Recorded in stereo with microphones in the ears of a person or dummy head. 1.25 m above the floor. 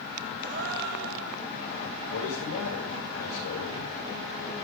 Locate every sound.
0.4 s a gasp: 60° right (ahead or behind), 1.9 m
2.1 s a man speaking: 70° left (ahead or behind), 5.5 m